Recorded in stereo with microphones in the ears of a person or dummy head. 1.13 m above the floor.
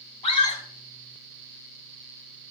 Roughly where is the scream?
Left.